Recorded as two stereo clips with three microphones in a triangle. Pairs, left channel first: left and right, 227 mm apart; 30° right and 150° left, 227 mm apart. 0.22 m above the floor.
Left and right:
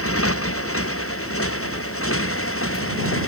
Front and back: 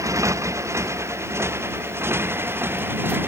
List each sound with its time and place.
0.0 s a motorcycle: 75° left; by 3.3 s 70° left